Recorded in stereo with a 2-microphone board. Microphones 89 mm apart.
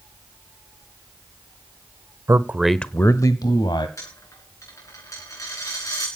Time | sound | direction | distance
2.3 | a man speaking | 35° right (ahead or behind) | 1.0 m
4.0 | a dropped coin | 35° left (ahead or behind) | 7 m